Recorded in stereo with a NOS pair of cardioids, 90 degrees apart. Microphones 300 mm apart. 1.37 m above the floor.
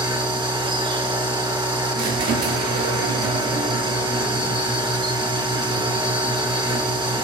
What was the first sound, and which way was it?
A machine running, 15° right.